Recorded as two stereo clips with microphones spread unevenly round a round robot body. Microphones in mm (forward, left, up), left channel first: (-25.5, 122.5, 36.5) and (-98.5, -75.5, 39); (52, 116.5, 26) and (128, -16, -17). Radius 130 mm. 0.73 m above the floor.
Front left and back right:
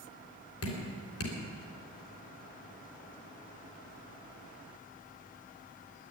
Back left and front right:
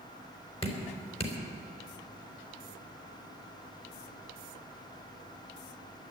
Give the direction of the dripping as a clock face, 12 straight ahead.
10 o'clock.